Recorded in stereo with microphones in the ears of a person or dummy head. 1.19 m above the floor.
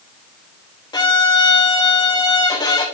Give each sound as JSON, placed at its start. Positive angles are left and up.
{"t": 0.9, "sound": "a violin", "side_deg": 20, "distance_m": 1.0}